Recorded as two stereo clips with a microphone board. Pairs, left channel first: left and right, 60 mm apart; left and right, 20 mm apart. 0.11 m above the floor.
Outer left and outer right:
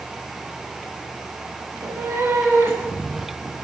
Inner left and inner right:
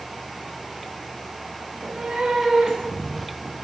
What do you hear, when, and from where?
1.7 s a cat meowing: 55° right (ahead or behind), 7 m; by 3.5 s 40° right (ahead or behind), 8 m